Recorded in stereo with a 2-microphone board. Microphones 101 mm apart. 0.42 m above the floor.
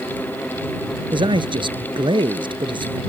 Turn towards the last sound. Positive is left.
turn(degrees=-55)  # may be behind; listen again after turning